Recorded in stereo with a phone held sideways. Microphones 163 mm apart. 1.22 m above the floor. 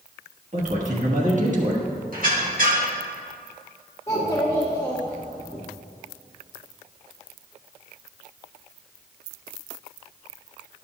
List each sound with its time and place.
0.5 s a man speaking: 50° right (ahead or behind), 1.3 m
2.1 s a squeak: 60° right (ahead or behind), 1.3 m
4.1 s a child speaking: 20° left (ahead or behind), 0.9 m